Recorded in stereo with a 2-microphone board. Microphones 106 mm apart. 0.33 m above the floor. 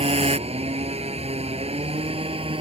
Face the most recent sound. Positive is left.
turn(degrees=-65)  # may be behind; listen again after turning